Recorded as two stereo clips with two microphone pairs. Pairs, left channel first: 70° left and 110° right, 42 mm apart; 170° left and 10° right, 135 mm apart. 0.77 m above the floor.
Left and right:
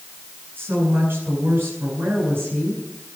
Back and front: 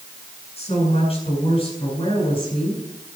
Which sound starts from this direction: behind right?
A woman speaking, at 0.6 s.